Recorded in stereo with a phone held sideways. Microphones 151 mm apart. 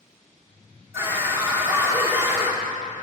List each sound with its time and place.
0.9 s a scream: 15° right (ahead or behind), 1.9 m